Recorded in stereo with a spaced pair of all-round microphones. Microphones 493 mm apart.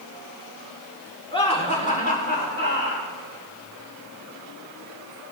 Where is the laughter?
10° left (ahead or behind), 4 m; by 3.1 s 25° left (ahead or behind), 4.5 m.